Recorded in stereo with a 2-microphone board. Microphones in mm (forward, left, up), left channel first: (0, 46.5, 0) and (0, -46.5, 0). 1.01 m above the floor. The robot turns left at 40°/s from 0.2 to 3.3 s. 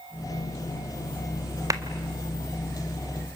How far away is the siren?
I don't hear a siren.